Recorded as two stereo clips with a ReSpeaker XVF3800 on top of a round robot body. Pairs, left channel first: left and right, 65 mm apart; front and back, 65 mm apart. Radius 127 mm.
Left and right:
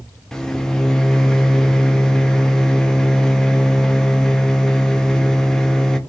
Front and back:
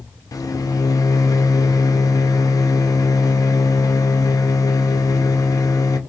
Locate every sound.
0.3 s a microwave: 10° left, 0.6 m